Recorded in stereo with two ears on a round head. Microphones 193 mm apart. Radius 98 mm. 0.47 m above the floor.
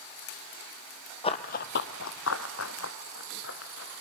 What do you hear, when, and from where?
1.2 s running footsteps: 25° left (ahead or behind), 1.0 m; by 4.0 s 50° left (ahead or behind), 3 m